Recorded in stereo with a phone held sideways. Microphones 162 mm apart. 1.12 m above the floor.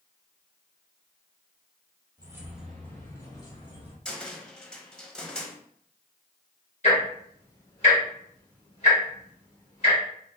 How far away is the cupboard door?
About 0.6 m.